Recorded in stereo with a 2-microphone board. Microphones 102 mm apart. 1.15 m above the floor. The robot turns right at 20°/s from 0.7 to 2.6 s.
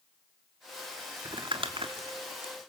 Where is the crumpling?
50° right (ahead or behind), 1.7 m; by 2.7 s 75° right (ahead or behind), 1.7 m.